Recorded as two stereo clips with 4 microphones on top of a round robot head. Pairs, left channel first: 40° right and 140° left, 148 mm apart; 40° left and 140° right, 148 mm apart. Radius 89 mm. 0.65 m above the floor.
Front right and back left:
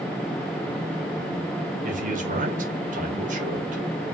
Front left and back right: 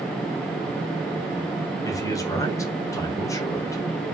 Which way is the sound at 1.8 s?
105° left.